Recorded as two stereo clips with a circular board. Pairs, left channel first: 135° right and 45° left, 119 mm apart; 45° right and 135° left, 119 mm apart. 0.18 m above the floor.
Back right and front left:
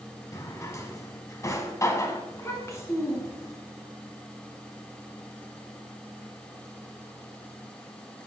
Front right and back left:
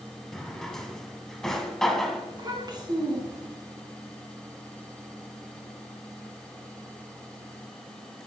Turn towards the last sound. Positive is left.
turn(degrees=170)